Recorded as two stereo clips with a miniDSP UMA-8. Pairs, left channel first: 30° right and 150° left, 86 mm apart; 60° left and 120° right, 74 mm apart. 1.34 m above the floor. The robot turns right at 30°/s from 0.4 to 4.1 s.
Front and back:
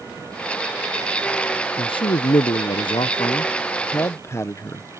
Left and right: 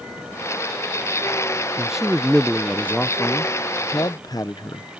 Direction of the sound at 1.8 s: 40° right.